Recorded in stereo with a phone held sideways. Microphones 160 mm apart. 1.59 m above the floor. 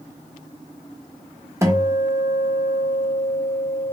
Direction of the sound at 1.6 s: 20° right (ahead or behind).